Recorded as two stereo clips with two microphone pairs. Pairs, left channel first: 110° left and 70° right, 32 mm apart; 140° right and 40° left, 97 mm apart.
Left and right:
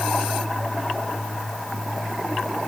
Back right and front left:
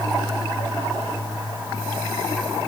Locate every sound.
Only background noise.